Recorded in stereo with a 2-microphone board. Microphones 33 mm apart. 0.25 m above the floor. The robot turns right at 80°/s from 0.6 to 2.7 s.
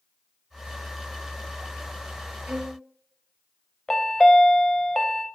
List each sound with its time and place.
2.5 s a violin: 30° right (ahead or behind), 1.5 m; by 2.8 s 15° right (ahead or behind), 1.5 m
3.9 s a chime: 25° left (ahead or behind), 0.7 m